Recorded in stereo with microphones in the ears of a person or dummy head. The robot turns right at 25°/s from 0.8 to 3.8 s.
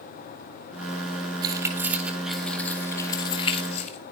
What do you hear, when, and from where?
1.4 s keys jangling: 20° right (ahead or behind), 4 m; by 4.0 s 40° left (ahead or behind), 4 m